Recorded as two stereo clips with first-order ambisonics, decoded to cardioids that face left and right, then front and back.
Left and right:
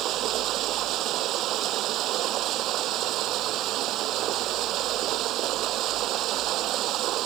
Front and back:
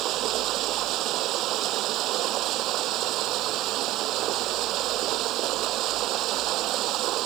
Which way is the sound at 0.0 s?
135° right.